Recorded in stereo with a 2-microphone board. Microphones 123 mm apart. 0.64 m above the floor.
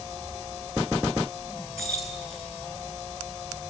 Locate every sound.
1.8 s keys jangling: centre (ahead or behind), 6.5 m